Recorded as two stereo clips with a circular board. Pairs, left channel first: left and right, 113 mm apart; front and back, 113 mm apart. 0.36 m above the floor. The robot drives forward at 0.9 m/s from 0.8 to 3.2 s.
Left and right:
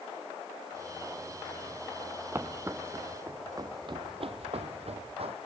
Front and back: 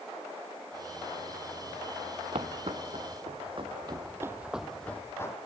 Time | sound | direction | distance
2.3 | footsteps | 160° right | 0.7 m